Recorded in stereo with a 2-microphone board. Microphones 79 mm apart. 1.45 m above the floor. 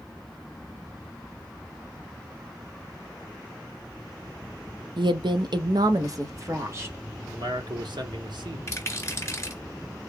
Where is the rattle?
30° left (ahead or behind), 1.5 m.